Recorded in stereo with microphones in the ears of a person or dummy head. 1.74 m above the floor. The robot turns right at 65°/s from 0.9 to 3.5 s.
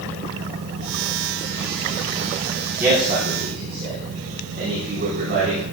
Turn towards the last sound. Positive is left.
turn(degrees=-55)  # may be behind; listen again after turning